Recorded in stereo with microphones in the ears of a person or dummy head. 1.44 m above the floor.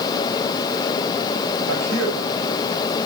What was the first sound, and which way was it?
A man speaking, 80° right.